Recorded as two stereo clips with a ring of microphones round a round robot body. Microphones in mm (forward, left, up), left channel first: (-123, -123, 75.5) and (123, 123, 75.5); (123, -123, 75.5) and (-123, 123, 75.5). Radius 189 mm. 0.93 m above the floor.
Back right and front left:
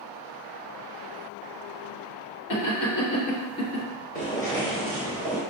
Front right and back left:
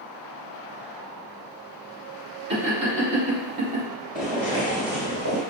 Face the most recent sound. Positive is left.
turn(degrees=105)